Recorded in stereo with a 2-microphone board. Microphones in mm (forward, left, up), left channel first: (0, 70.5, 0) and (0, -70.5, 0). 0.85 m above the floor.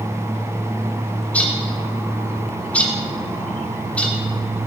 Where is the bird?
10° left (ahead or behind), 1.4 m.